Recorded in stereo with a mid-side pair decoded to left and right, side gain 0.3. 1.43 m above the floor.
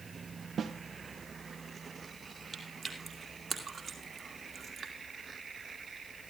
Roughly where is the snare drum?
Right.